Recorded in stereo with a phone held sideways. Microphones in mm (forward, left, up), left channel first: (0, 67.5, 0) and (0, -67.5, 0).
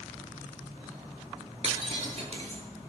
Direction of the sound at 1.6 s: 50° right (ahead or behind).